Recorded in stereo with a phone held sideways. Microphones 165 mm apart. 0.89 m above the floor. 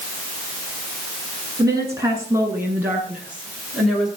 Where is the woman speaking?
20° right (ahead or behind), 9.5 m; by 4.1 s centre (ahead or behind), 11 m.